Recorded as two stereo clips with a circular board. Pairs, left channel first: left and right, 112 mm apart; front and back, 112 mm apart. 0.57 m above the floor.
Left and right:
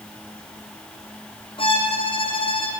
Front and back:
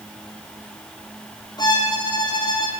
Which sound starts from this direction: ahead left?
A violin, at 1.6 s.